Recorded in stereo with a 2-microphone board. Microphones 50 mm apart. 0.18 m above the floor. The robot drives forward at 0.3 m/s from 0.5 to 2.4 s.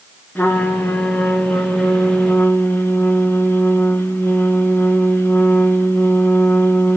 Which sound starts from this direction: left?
A trumpet, at 0.3 s.